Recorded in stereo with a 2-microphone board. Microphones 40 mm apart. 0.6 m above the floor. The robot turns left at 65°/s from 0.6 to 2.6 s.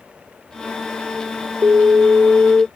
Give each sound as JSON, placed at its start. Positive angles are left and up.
{"t": 1.6, "sound": "an alarm", "azimuth_deg": -95}